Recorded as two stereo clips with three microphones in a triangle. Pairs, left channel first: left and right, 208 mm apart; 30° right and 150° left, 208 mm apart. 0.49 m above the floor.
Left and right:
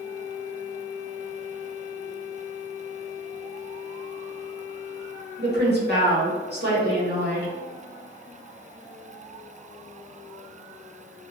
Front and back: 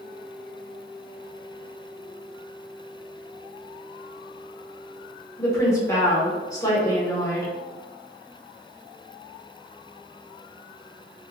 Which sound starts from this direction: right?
A woman speaking, at 5.4 s.